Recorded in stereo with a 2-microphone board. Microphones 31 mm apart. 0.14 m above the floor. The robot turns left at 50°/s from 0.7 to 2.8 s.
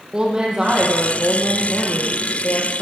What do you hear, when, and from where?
0.1 s a woman speaking: 155° right, 5.5 m; by 2.8 s 100° left, 5.5 m